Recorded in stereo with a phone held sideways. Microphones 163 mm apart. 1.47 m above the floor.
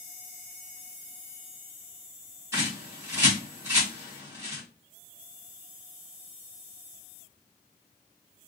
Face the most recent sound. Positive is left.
turn(degrees=-20)  # may be behind; listen again after turning